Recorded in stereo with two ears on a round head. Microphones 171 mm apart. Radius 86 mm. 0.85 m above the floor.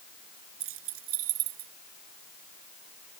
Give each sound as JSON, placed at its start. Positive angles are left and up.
{"t": 0.6, "sound": "keys jangling", "side_deg": -90}